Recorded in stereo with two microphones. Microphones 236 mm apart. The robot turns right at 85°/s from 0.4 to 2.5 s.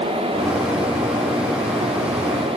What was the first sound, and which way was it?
Only background noise.